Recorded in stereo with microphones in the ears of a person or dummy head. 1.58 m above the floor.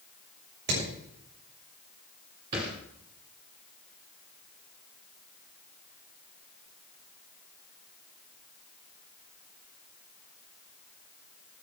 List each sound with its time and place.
0.7 s hammering: 60° right (ahead or behind), 7 m
2.5 s a thud: 15° right (ahead or behind), 1.5 m